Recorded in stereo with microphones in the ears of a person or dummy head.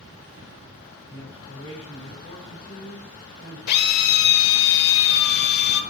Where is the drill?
55° left (ahead or behind), 0.7 m.